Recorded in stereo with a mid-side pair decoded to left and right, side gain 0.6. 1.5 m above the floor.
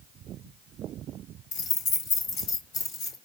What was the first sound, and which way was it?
Keys jangling, 65° left.